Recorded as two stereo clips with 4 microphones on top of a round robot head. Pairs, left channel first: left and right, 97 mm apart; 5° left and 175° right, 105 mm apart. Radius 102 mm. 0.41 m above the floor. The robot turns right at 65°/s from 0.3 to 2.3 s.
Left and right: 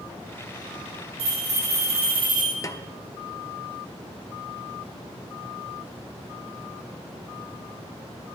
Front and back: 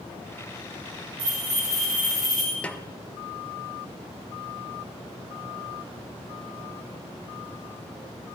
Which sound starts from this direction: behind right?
A bell, at 1.2 s.